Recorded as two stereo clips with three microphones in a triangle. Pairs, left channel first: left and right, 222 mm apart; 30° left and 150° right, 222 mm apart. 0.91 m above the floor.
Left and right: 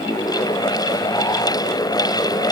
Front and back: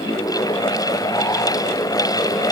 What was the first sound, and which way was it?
Only background noise.